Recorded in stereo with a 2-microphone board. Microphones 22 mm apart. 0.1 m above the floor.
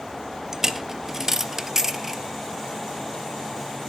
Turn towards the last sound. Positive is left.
turn(degrees=-20)  # may be behind; listen again after turning